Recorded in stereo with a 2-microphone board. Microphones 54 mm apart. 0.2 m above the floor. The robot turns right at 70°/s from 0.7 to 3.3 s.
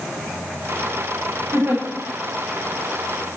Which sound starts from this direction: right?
A giggle, at 1.5 s.